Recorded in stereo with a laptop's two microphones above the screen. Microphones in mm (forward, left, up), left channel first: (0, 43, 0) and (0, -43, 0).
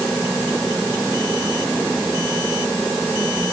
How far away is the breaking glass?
I don't hear breaking glass.